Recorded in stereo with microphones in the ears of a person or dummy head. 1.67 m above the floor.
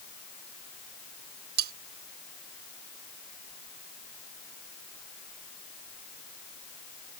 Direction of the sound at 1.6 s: 60° right (ahead or behind).